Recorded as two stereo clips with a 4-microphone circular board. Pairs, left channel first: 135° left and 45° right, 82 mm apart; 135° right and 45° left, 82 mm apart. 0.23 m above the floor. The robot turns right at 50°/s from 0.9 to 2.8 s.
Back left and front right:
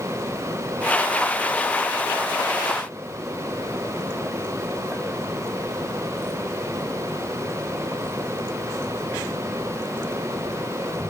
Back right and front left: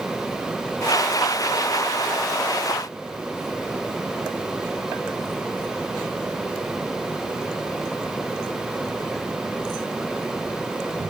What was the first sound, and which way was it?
Only background noise.